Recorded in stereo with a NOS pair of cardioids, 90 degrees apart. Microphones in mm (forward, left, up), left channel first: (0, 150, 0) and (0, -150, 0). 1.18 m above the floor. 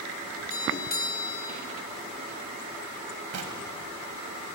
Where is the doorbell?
30° left, 5 m.